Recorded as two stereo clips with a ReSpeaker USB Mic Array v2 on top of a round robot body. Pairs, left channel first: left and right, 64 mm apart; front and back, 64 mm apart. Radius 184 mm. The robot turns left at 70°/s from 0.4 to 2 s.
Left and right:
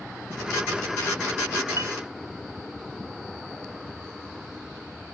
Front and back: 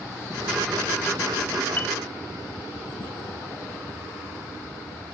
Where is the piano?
55° right, 1.2 m; by 1.9 s 65° right, 1.2 m.